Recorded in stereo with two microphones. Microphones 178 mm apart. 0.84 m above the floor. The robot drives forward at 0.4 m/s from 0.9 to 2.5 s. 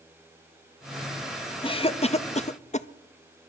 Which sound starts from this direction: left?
A cough, at 1.6 s.